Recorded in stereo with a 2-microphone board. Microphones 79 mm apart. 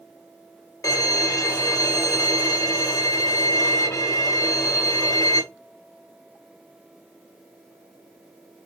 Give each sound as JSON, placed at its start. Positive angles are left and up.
{"t": 0.8, "sound": "a violin", "side_deg": 40, "distance_m": 1.2}